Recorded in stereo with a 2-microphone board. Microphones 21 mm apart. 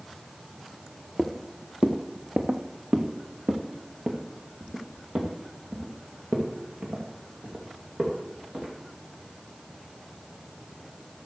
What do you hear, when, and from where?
1.2 s footsteps: 25° right (ahead or behind), 1.2 m; by 8.7 s 70° right (ahead or behind), 4.5 m